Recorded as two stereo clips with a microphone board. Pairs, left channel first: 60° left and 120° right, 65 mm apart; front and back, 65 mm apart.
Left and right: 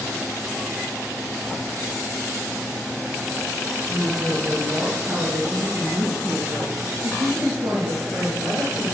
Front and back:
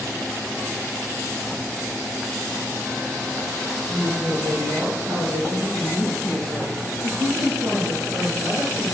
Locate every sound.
3.9 s a woman speaking: 170° right, 3 m; by 8.8 s 135° right, 4.5 m